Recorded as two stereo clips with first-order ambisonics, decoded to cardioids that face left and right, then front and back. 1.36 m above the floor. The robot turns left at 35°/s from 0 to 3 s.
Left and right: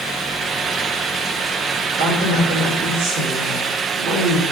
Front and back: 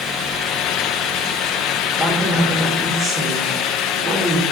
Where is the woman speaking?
85° right, 5.5 m; by 4.4 s 120° right, 5.5 m.